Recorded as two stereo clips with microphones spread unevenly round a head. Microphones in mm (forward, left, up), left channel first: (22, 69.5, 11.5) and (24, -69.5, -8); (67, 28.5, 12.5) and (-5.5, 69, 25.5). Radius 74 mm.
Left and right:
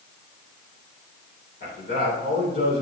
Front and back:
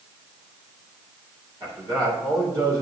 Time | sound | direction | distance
1.6 | a man speaking | 115° left | 3 m